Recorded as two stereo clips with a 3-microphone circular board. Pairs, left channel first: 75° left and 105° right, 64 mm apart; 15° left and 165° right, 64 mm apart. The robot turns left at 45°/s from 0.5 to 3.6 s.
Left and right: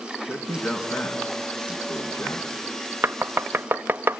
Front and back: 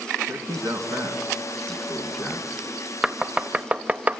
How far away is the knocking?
About 0.6 m.